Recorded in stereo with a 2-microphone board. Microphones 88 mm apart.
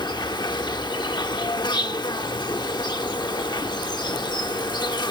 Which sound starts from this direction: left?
An insect, at 0.0 s.